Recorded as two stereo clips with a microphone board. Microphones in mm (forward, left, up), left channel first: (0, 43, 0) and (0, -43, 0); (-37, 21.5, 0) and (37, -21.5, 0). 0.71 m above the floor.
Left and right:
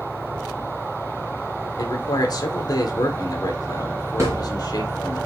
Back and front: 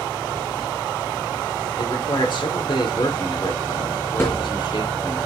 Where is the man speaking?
130° left, 2.5 m.